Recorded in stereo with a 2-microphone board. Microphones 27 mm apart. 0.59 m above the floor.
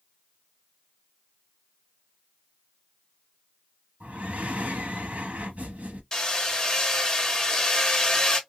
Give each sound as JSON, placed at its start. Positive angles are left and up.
{"t": 4.0, "sound": "breathing", "side_deg": -65, "distance_m": 0.7}
{"t": 6.1, "sound": "hammering", "side_deg": 25, "distance_m": 0.9}